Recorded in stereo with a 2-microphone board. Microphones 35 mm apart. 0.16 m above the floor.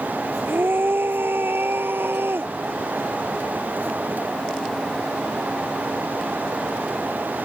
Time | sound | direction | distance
0.4 | a scream | 85° right | ?